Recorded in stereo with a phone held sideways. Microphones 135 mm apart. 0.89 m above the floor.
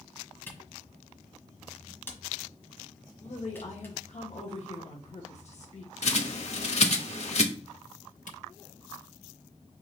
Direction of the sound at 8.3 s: 70° left (ahead or behind).